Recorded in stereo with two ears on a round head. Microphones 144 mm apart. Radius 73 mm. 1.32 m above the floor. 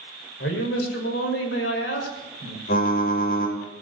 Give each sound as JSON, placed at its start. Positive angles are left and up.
{"t": 0.4, "sound": "a man speaking", "side_deg": 90, "distance_m": 6.0}
{"t": 2.7, "sound": "typing on a keyboard", "side_deg": 60, "distance_m": 5.0}